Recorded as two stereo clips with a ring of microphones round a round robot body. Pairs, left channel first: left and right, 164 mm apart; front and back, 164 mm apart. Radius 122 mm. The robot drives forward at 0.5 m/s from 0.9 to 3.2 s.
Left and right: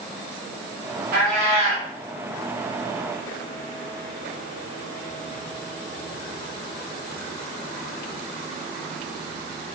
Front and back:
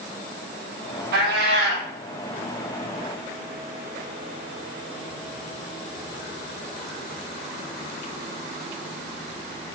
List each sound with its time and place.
1.1 s a cat meowing: 140° right, 0.5 m; by 1.9 s 155° right, 0.9 m